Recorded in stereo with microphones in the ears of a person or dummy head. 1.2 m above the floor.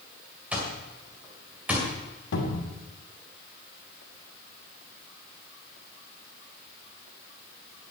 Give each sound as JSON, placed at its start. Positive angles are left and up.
{"t": 0.5, "sound": "an alarm clock", "side_deg": -5, "distance_m": 2.5}
{"t": 2.3, "sound": "a cupboard door", "side_deg": 75, "distance_m": 2.5}